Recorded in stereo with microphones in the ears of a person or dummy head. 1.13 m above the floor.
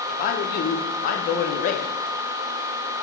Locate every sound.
0.1 s a man speaking: 50° left (ahead or behind), 0.8 m